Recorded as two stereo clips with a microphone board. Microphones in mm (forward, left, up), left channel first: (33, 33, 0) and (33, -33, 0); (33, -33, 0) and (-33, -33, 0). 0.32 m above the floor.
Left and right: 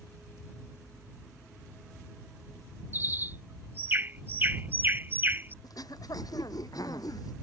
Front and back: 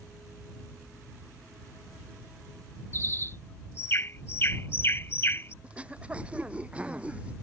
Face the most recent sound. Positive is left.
turn(degrees=110)